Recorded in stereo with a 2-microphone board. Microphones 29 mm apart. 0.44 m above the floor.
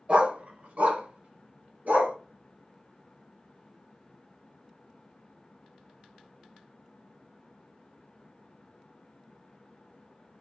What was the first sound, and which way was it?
A dog barking, 50° right (ahead or behind).